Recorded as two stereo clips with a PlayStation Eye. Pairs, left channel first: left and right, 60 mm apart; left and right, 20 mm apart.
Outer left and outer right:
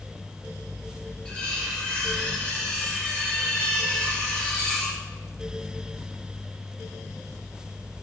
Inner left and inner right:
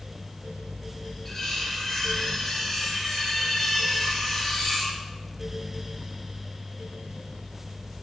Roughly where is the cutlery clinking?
Centre.